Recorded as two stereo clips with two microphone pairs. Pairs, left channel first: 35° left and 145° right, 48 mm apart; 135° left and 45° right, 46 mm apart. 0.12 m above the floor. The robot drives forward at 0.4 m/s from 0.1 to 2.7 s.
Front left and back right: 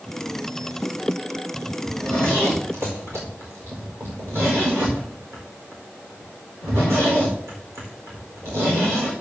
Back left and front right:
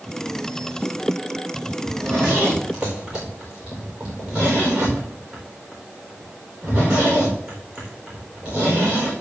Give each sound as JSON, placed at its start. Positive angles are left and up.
{"t": 1.8, "sound": "a zipper", "azimuth_deg": -110, "distance_m": 4.5}